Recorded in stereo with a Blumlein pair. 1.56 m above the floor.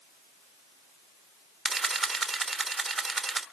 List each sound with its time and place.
1.6 s a camera shutter: 5° right, 1.0 m